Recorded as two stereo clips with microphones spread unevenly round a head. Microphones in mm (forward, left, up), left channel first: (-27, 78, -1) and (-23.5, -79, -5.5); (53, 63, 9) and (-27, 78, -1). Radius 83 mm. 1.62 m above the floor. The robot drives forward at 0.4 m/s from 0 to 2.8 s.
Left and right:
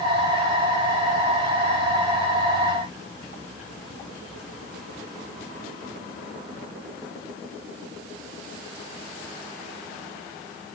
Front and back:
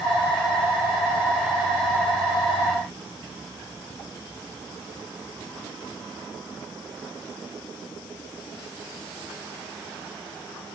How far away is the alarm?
I don't hear an alarm.